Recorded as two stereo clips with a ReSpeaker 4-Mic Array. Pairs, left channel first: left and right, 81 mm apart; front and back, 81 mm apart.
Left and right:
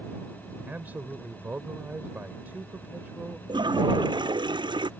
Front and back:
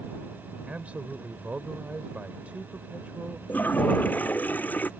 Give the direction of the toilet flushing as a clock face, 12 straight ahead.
2 o'clock.